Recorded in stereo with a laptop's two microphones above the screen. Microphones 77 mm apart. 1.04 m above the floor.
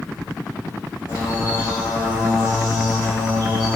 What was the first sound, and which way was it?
A bird, 40° left (ahead or behind).